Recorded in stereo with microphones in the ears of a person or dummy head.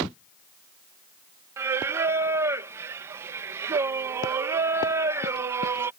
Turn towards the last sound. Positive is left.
turn(degrees=-15)  # may be behind; listen again after turning